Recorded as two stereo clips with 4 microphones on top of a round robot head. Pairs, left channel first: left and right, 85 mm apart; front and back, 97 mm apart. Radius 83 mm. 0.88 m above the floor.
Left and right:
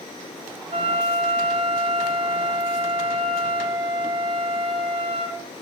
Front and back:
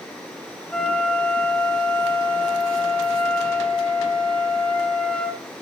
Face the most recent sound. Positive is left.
turn(degrees=-85)